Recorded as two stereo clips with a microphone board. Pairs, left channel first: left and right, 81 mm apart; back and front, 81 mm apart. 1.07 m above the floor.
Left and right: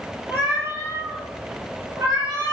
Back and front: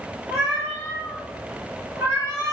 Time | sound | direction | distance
0.3 | a cat meowing | 30° right | 2.0 m